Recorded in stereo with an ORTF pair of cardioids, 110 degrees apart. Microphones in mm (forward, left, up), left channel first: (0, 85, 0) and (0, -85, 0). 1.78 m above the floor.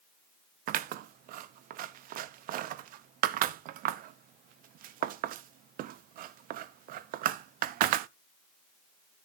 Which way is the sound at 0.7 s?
65° right.